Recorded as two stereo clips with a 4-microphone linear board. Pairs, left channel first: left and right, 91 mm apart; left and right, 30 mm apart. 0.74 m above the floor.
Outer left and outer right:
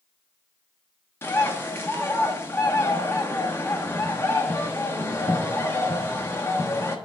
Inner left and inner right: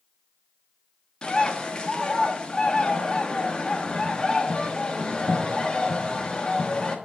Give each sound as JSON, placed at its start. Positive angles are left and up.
{"t": 1.2, "sound": "a bird", "side_deg": 25, "distance_m": 1.1}